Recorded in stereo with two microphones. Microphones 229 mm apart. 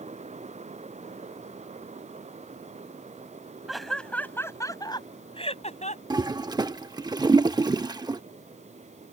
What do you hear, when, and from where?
3.7 s laughter: centre (ahead or behind); by 6.0 s 35° left (ahead or behind)
6.1 s a toilet flushing: 20° right (ahead or behind)